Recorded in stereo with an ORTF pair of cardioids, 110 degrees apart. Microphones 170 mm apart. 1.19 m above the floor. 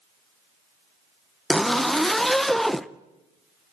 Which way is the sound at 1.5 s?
Straight ahead.